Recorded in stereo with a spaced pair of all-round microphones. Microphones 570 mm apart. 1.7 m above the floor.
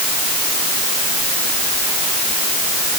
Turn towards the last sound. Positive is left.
No sound to turn to.